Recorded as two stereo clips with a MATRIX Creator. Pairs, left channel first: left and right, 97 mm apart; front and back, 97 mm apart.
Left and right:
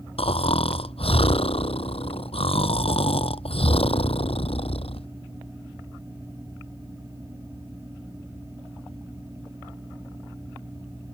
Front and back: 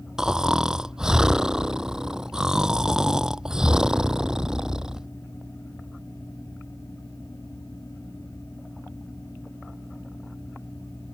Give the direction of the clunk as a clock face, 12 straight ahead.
No clunk in this recording.